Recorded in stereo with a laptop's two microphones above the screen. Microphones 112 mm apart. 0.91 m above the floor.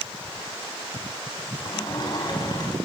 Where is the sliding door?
45° left (ahead or behind), 5 m.